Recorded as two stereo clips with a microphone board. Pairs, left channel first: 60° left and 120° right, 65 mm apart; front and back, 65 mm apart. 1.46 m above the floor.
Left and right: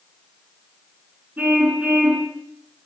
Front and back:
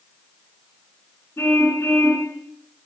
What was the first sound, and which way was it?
A car horn, 50° right.